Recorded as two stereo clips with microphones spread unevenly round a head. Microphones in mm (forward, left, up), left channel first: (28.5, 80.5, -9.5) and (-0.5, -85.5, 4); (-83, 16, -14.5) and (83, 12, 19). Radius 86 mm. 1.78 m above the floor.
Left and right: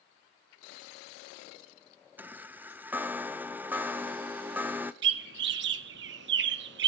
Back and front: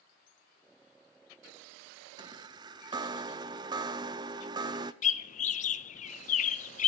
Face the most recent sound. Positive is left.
turn(degrees=-130)